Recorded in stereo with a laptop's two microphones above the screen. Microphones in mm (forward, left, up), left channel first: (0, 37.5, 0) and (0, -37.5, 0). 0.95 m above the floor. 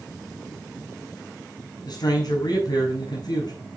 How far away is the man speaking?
About 5.5 m.